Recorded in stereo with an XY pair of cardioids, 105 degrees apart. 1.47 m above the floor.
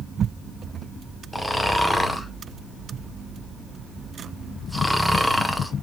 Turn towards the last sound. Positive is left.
turn(degrees=5)